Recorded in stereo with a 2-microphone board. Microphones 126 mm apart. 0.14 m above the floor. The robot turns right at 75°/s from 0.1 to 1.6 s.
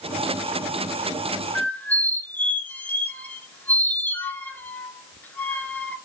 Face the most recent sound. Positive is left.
turn(degrees=15)  # may be behind; listen again after turning